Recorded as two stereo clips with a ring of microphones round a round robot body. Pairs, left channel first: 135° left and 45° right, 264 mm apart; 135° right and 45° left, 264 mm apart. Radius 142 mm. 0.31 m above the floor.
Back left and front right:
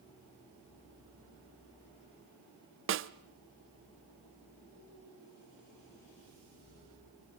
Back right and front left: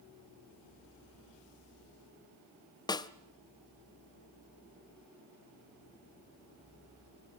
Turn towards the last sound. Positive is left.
turn(degrees=-65)